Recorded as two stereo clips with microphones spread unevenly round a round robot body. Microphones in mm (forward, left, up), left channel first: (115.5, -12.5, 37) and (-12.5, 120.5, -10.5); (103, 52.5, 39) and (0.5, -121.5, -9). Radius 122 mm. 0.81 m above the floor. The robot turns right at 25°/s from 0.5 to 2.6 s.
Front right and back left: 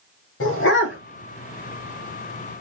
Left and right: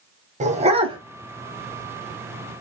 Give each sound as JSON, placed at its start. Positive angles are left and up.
{"t": 0.4, "sound": "a dog barking", "azimuth_deg": -60, "distance_m": 1.4}